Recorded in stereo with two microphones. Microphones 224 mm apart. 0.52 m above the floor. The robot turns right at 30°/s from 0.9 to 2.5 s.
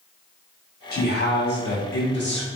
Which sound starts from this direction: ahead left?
A man speaking, at 0.9 s.